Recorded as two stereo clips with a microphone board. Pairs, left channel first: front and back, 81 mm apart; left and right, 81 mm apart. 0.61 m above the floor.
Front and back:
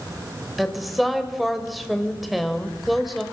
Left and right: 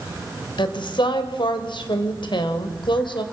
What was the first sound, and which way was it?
A woman speaking, 90° left.